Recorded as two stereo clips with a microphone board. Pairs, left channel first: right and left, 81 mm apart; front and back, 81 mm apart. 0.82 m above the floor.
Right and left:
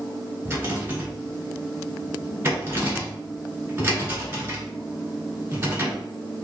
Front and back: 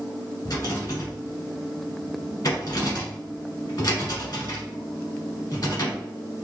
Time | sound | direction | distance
0.5 | a rattle | 35° left | 1.4 m